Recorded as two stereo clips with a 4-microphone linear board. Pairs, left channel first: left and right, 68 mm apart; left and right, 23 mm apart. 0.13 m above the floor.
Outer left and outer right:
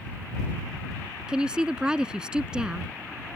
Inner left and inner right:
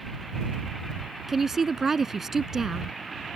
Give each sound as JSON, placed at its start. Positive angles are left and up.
{"t": 1.3, "sound": "a woman speaking", "side_deg": -15}